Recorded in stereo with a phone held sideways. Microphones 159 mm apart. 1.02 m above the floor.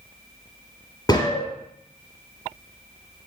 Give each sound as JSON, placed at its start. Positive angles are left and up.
{"t": 1.1, "sound": "a gunshot", "side_deg": 25, "distance_m": 3.0}